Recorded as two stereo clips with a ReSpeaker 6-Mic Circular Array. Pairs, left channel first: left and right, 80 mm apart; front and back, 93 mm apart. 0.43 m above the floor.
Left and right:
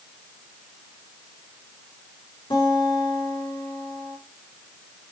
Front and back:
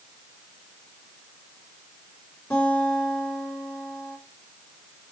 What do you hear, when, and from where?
2.5 s a guitar: 80° left, 4.5 m